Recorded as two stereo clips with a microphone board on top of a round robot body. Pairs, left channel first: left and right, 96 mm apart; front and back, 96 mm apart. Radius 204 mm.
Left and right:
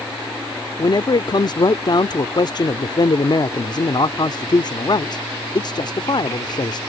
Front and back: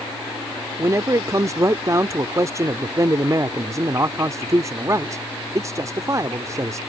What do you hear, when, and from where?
0.8 s a man speaking: 125° left